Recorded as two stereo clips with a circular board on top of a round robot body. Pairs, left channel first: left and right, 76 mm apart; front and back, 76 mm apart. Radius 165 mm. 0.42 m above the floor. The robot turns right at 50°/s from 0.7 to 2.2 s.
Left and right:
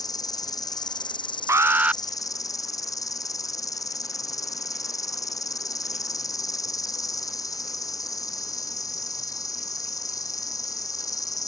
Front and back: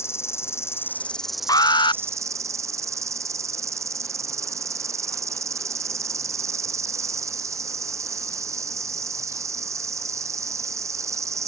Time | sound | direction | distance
0.0 | an insect | 55° left | ?
1.5 | an alarm | 35° right | ?